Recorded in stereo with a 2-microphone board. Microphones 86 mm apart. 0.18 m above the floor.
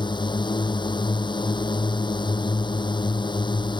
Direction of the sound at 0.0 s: 65° left (ahead or behind).